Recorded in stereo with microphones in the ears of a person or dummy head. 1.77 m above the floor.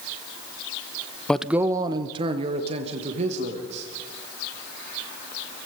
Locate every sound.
1.3 s a man speaking: 10° left (ahead or behind), 0.6 m; by 3.9 s 40° right (ahead or behind), 3.5 m